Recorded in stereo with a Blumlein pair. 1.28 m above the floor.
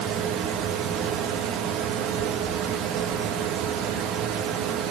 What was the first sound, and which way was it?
A fan, 35° right.